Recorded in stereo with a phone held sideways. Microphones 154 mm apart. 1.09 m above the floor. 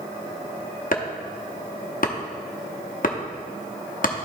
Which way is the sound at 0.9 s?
60° left (ahead or behind).